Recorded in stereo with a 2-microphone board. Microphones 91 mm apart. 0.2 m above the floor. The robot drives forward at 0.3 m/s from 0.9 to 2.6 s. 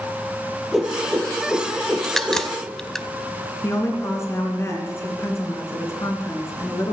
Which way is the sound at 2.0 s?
5° left (ahead or behind).